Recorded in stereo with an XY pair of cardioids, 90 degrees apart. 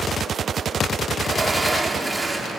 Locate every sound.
1.2 s a sliding door: 15° right, 3.5 m